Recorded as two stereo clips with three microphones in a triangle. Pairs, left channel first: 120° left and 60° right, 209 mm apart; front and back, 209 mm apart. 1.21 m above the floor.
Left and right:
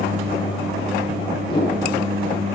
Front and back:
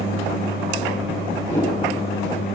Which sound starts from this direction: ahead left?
A whoosh, at 1.4 s.